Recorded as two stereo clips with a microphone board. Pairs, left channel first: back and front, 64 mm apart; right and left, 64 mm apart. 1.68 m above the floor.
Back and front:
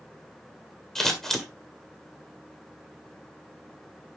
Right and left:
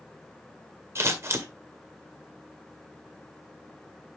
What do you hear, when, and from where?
0.9 s scissors: 100° left, 1.8 m